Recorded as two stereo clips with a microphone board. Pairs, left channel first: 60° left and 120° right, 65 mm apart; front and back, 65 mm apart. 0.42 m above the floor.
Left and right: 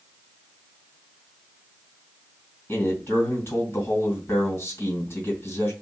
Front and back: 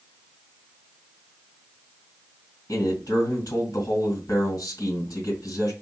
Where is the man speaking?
15° left, 1.9 m.